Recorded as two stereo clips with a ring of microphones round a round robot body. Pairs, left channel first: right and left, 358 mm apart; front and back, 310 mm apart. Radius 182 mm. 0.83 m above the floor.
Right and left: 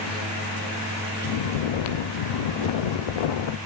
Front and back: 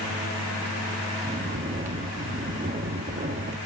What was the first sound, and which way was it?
Snoring, 110° right.